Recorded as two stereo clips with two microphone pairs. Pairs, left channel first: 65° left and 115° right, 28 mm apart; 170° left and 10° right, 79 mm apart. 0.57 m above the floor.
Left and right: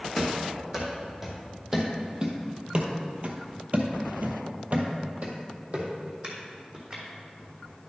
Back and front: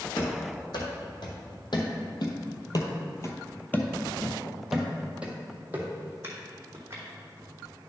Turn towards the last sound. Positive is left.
turn(degrees=-65)